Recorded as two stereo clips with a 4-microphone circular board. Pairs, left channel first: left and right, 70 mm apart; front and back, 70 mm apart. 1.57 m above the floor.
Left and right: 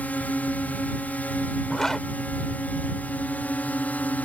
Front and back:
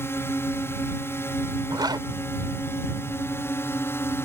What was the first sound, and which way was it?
A drone, 35° left.